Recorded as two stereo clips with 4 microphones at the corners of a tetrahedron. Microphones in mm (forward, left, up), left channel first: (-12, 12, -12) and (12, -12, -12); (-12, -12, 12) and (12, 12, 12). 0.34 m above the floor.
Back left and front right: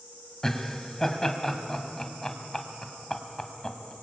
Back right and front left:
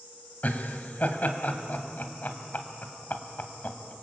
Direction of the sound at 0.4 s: 155° right.